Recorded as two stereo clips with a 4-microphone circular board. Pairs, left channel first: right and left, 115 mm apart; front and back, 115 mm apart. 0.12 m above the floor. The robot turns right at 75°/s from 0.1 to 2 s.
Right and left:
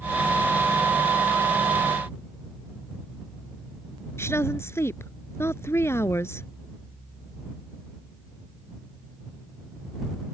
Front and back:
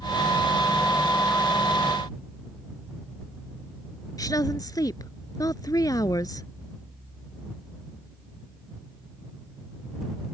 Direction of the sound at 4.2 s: 35° right.